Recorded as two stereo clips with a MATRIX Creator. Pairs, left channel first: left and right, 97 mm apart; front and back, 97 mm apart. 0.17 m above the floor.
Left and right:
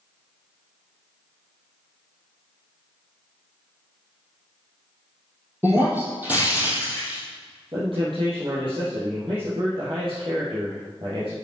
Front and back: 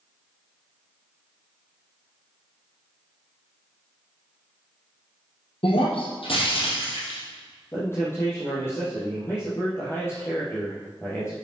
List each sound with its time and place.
5.6 s breaking glass: 20° right, 3.5 m
7.7 s a man speaking: 60° right, 4 m